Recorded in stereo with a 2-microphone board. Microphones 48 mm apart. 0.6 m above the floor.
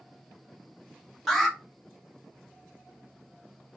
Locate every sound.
1.3 s an alarm: 5° left (ahead or behind), 1.2 m